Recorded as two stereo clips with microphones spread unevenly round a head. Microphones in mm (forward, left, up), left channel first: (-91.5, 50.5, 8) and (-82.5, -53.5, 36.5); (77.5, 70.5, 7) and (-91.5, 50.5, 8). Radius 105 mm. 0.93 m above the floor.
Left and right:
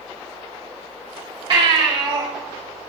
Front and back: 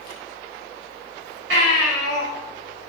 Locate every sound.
1.5 s a baby crying: 125° right, 4 m